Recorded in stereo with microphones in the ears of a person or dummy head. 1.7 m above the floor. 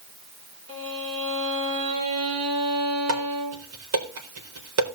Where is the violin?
35° right (ahead or behind), 4 m.